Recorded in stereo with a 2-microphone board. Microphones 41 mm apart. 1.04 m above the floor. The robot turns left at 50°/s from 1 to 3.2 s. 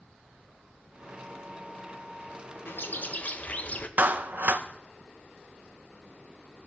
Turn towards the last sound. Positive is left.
turn(degrees=-45)  # may be behind; listen again after turning